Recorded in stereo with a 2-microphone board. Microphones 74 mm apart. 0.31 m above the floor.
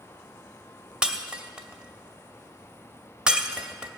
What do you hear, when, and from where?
1.0 s breaking glass: 10° right (ahead or behind), 0.8 m